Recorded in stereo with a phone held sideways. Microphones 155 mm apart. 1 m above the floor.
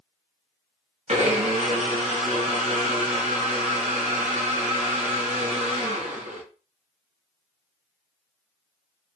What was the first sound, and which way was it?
A blender, 45° right (ahead or behind).